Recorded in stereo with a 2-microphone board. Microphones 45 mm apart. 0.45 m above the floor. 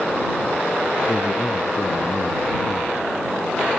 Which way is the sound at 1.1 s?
75° left (ahead or behind).